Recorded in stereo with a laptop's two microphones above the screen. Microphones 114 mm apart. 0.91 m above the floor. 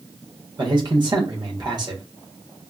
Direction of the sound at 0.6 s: 40° right (ahead or behind).